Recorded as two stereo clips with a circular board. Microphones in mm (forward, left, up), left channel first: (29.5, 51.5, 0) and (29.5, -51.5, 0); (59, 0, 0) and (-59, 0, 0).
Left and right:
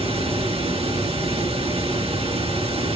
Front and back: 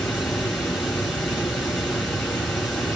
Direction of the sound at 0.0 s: 90° right.